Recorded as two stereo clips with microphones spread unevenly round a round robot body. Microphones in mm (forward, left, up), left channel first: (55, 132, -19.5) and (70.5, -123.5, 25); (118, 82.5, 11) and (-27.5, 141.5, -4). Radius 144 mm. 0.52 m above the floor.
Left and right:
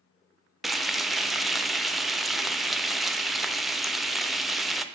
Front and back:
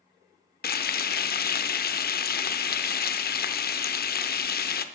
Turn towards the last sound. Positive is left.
turn(degrees=5)